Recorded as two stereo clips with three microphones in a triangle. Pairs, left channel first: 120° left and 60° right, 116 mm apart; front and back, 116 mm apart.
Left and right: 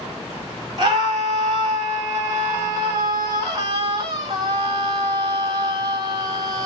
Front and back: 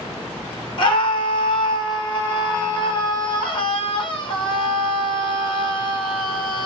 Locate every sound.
0.8 s a scream: 20° right, 2.5 m